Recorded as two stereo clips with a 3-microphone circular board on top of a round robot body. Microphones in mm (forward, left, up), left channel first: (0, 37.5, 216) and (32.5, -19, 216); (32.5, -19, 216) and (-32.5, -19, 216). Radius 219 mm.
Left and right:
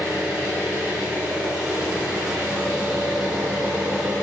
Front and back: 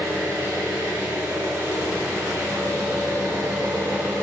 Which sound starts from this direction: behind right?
An engine running, at 0.0 s.